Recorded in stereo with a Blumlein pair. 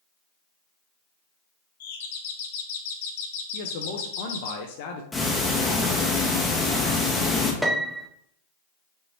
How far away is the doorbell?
About 0.7 m.